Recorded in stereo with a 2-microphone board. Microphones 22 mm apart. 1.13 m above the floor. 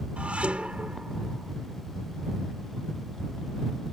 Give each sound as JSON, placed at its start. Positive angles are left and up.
{"t": 0.2, "sound": "dishes clattering", "side_deg": -65}